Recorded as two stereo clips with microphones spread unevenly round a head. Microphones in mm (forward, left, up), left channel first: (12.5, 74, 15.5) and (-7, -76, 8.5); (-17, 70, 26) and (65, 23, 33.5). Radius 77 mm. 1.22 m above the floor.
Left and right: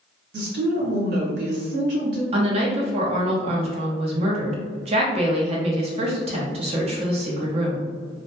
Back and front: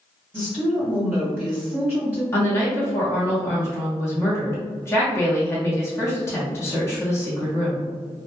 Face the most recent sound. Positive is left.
turn(degrees=-145)